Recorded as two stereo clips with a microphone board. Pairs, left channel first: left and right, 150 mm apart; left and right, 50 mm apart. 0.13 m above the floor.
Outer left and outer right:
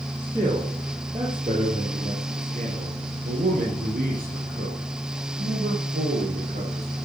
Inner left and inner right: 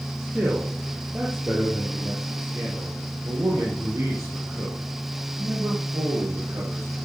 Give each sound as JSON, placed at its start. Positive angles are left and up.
{"t": 0.2, "sound": "a man speaking", "side_deg": -15, "distance_m": 3.5}